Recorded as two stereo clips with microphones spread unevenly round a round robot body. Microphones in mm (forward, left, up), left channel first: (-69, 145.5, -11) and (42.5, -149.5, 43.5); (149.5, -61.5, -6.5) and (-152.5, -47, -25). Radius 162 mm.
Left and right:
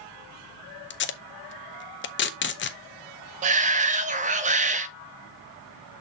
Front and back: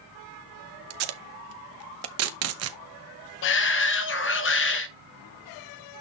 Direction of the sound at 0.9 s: 150° left.